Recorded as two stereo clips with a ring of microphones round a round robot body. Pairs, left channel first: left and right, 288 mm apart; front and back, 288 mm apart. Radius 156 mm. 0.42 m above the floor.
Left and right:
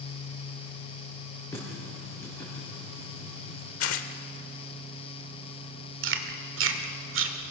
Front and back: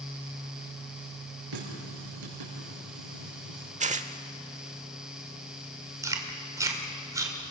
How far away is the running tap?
About 6 m.